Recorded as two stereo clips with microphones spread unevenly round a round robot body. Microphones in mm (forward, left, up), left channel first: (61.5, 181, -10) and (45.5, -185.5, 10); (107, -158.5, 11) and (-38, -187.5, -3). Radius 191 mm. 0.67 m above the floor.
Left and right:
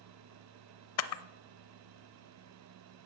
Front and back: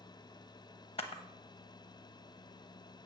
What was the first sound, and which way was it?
A camera shutter, 45° left.